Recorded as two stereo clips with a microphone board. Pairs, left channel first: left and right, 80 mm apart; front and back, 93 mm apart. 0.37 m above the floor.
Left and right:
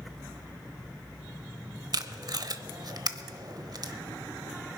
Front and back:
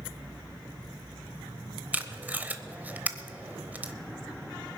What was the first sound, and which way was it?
Tape being pulled, 110° right.